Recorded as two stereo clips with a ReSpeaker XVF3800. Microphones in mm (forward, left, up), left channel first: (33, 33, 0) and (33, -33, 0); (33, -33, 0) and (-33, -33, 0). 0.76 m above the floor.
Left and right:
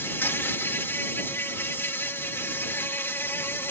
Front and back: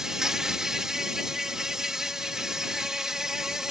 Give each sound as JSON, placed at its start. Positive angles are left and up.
{"t": 0.0, "sound": "an insect", "azimuth_deg": 105}